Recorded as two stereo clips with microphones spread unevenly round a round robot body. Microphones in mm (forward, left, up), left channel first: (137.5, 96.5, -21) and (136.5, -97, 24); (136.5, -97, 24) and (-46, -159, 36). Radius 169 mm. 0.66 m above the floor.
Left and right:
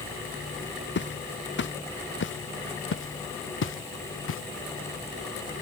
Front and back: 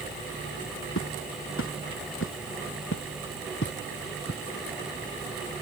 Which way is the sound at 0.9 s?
65° left.